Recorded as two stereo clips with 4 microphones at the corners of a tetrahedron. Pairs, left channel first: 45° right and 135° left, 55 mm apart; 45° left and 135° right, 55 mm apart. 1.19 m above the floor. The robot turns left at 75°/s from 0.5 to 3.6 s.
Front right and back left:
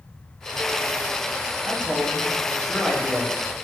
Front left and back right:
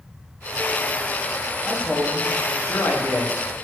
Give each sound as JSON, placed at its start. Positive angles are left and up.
{"t": 1.6, "sound": "a man speaking", "azimuth_deg": 115, "distance_m": 0.6}